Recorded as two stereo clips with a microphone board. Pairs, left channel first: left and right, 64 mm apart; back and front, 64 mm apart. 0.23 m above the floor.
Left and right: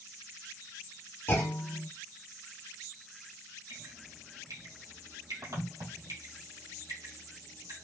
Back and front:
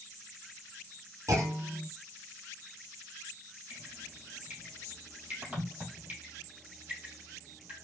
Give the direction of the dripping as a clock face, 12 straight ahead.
2 o'clock.